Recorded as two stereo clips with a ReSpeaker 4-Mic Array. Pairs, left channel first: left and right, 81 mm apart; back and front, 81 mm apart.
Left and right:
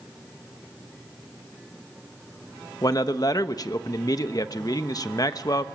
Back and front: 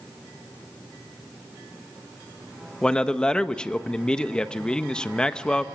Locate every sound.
2.8 s a man speaking: 100° left, 1.0 m